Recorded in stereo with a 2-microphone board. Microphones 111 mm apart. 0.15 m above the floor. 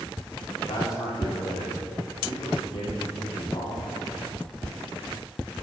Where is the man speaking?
45° left (ahead or behind), 6.5 m.